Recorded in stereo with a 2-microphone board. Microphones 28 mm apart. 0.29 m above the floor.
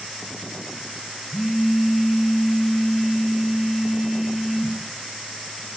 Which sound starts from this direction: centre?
A phone buzzing, at 1.3 s.